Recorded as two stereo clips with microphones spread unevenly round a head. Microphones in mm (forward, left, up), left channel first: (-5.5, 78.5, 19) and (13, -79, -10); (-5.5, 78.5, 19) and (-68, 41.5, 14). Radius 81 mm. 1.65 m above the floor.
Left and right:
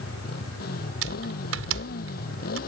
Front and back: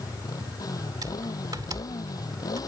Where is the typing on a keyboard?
80° right.